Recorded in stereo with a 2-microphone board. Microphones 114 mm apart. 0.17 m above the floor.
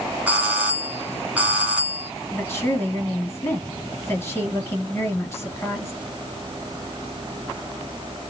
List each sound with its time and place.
0.3 s a doorbell: 15° right (ahead or behind), 1.6 m
2.3 s a woman speaking: 20° left (ahead or behind), 2.5 m